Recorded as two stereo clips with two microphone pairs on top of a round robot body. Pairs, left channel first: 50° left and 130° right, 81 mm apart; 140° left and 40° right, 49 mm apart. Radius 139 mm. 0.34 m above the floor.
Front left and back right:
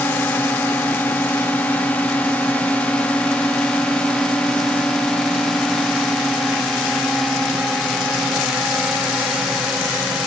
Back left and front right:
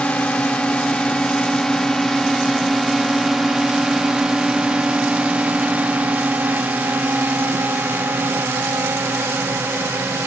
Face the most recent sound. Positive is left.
turn(degrees=-40)